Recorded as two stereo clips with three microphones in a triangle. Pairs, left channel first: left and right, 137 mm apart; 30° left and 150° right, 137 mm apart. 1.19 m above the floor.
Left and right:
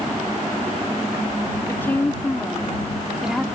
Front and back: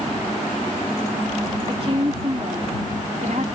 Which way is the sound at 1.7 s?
165° left.